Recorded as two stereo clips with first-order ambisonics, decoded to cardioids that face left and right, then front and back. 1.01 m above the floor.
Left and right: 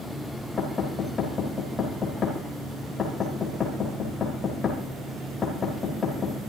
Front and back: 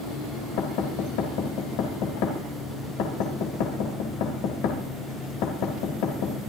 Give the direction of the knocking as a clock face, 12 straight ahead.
11 o'clock.